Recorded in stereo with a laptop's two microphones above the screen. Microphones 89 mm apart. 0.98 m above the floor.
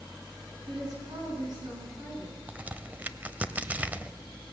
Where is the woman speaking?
50° right (ahead or behind), 8 m.